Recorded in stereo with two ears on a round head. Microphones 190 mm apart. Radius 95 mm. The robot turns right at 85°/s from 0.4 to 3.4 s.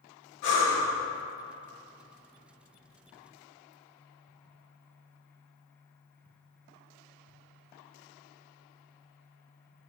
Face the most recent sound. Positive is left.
turn(degrees=5)